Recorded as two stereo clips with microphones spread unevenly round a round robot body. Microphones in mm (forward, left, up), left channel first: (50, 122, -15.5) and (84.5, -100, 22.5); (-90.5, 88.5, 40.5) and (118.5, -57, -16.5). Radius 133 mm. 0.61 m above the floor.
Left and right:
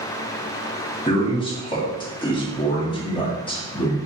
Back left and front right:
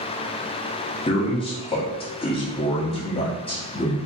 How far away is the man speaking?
About 0.9 m.